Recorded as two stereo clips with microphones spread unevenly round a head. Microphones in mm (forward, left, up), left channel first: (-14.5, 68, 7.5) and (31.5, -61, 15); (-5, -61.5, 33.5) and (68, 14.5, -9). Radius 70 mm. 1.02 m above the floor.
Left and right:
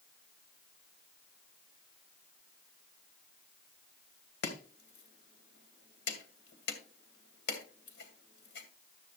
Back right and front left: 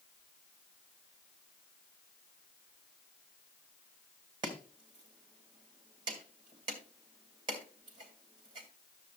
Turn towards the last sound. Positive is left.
turn(degrees=110)